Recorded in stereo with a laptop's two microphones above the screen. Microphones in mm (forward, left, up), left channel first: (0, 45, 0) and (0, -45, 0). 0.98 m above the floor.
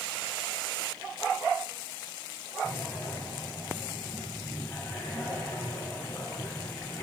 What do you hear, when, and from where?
2.6 s breathing: 30° left (ahead or behind), 3.5 m